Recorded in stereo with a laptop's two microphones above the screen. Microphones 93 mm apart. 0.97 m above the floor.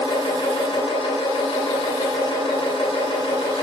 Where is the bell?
No bell in this recording.